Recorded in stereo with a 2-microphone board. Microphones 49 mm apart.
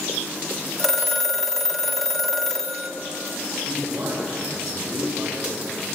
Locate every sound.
0.8 s a phone ringing: 5° left (ahead or behind), 1.3 m
3.7 s a man speaking: 65° right (ahead or behind), 6 m